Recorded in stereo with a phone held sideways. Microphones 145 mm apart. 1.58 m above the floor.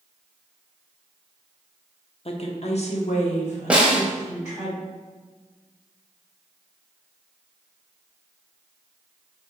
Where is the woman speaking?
45° left (ahead or behind), 0.6 m; by 4.7 s 55° left (ahead or behind), 1.8 m.